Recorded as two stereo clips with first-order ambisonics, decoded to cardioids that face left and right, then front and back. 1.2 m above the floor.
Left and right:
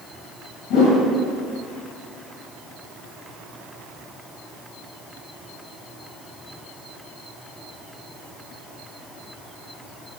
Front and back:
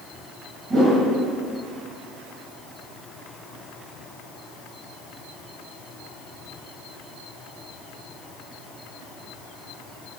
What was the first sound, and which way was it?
A whoosh, 115° left.